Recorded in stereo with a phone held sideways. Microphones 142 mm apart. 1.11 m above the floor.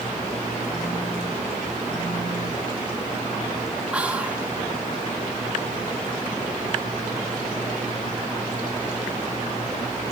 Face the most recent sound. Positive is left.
turn(degrees=-10)  # may be behind; listen again after turning